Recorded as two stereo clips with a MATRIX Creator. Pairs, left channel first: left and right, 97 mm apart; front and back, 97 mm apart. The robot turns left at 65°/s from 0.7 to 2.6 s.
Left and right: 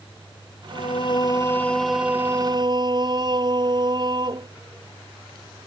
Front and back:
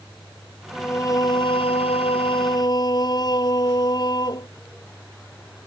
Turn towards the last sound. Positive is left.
turn(degrees=-45)